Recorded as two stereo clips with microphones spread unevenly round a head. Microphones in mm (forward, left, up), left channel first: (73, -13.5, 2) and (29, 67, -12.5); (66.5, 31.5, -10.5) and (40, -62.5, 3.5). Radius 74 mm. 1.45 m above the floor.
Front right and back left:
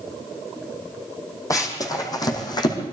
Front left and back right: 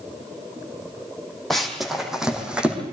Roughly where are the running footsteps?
Ahead.